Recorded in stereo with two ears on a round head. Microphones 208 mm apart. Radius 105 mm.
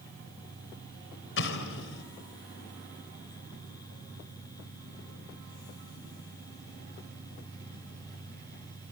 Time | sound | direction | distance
1.4 | an explosion | 60° left (ahead or behind) | 4 m